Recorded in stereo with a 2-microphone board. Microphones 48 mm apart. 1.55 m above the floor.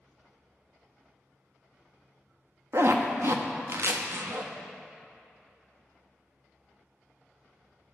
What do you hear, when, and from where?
2.7 s a zipper: 55° right (ahead or behind), 0.5 m